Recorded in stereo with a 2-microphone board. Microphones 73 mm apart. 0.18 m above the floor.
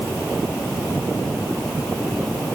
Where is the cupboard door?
No cupboard door in this recording.